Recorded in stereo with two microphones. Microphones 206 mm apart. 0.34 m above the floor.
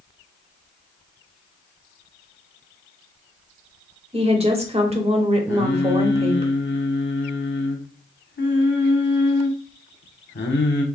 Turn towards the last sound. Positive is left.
turn(degrees=65)  # may be behind; listen again after turning